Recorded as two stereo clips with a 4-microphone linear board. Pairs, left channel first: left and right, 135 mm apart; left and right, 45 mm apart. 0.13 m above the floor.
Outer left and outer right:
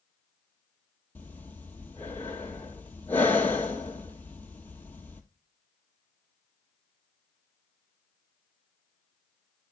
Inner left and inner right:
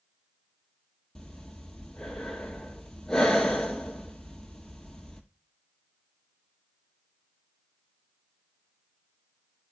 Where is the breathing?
10° left (ahead or behind), 1.3 m.